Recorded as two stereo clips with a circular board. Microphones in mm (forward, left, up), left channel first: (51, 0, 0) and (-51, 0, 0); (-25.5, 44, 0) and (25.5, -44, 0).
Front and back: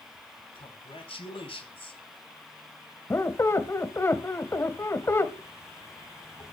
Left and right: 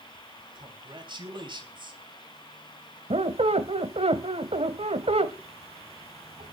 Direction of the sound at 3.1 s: 65° right.